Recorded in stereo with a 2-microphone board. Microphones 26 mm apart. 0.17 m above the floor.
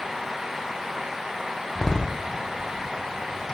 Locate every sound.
1.8 s a door slam: 25° left (ahead or behind), 4 m